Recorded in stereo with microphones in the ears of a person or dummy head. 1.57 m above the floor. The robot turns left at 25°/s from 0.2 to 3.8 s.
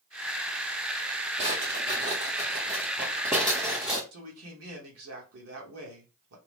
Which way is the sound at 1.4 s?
25° right (ahead or behind).